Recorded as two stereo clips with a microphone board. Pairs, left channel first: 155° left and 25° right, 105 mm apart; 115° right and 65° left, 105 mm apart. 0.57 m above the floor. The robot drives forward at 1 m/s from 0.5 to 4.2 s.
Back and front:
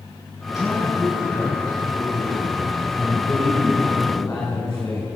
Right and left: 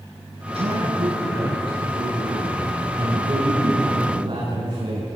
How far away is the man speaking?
About 8 m.